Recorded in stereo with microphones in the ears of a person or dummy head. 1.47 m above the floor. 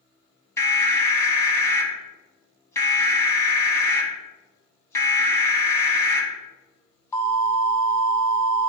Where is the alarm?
20° left (ahead or behind), 2.0 m.